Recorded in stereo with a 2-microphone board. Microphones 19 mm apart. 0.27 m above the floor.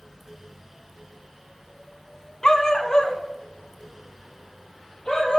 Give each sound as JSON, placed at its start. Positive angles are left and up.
{"t": 2.4, "sound": "a dog barking", "side_deg": 35, "distance_m": 0.7}